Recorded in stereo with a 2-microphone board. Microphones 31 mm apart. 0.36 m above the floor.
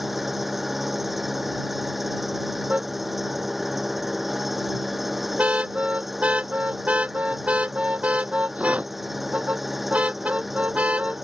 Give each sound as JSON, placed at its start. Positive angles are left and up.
{"t": 0.0, "sound": "an engine running", "side_deg": -5}
{"t": 2.7, "sound": "a car horn", "side_deg": -45}